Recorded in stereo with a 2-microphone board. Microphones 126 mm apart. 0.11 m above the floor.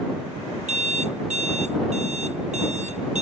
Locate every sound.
0.7 s an alarm clock: 65° right (ahead or behind)